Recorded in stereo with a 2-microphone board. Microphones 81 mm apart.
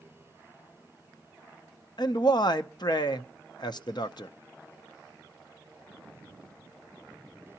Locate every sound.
2.0 s a man speaking: 60° left (ahead or behind), 0.6 m